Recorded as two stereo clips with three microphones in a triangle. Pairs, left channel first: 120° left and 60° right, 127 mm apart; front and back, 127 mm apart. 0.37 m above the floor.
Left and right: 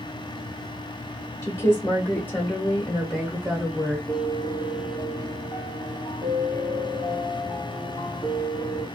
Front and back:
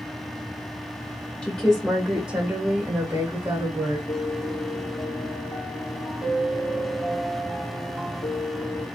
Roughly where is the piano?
Ahead left.